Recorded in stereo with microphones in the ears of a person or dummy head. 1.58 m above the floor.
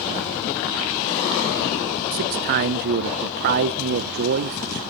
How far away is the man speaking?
About 0.9 m.